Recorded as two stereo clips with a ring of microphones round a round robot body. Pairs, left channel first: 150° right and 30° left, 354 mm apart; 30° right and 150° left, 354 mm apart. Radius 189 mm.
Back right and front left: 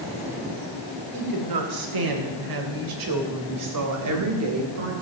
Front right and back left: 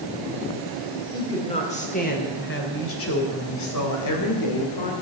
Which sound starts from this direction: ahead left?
A woman speaking, at 1.1 s.